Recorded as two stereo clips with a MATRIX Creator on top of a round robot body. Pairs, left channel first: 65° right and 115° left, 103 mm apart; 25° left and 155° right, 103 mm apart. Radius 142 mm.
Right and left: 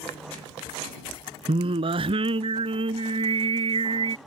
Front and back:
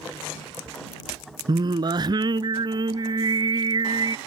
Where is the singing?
150° left.